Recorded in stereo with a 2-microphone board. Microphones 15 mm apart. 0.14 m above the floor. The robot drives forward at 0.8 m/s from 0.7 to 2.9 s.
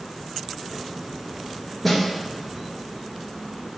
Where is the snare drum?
5° left (ahead or behind), 1.4 m.